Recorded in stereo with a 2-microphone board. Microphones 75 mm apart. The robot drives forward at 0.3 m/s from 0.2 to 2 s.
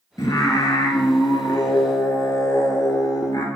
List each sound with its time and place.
0.2 s singing: 55° left (ahead or behind), 0.6 m; by 3.5 s 50° left (ahead or behind), 0.6 m